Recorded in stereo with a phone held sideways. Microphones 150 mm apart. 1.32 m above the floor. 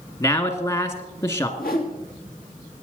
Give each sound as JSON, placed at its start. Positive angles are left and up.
{"t": 0.2, "sound": "a man speaking", "side_deg": 30, "distance_m": 1.8}
{"t": 1.6, "sound": "a whoosh", "side_deg": 75, "distance_m": 3.0}